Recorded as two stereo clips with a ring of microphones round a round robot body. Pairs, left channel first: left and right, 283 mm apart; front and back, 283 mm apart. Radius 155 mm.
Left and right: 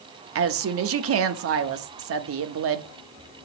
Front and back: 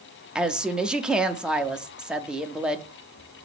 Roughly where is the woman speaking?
Right.